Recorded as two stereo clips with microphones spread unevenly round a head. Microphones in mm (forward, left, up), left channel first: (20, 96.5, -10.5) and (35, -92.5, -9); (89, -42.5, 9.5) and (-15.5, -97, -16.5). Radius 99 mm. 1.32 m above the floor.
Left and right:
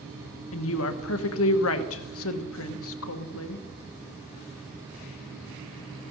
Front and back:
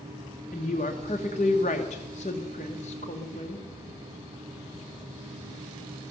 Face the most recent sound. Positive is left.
turn(degrees=85)